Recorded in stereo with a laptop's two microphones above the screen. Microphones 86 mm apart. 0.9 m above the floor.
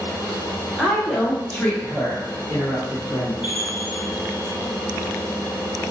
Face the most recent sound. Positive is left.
turn(degrees=75)  # may be behind; listen again after turning